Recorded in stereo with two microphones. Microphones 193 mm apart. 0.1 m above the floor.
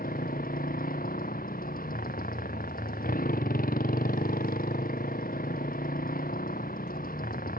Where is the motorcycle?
50° left (ahead or behind).